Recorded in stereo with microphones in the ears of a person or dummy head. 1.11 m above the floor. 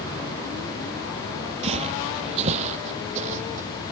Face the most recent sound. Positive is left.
turn(degrees=-45)  # may be behind; listen again after turning